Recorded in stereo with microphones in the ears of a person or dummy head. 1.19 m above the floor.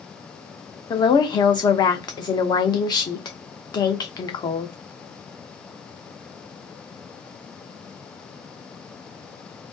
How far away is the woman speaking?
About 0.7 m.